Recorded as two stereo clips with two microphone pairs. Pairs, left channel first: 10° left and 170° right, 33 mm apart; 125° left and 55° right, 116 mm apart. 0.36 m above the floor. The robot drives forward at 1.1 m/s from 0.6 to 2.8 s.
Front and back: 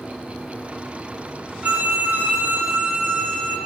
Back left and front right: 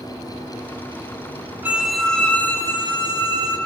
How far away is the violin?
About 0.6 m.